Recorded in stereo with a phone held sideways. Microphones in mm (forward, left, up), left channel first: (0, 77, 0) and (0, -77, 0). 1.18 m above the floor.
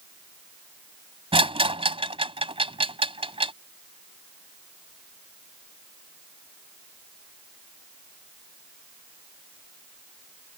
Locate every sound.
1.3 s a rattle: 35° right (ahead or behind)